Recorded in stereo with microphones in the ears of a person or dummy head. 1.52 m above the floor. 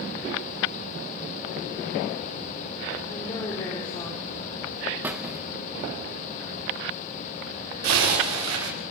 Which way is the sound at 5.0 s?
15° right (ahead or behind).